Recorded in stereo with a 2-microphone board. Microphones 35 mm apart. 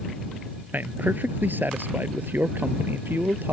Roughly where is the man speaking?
Right.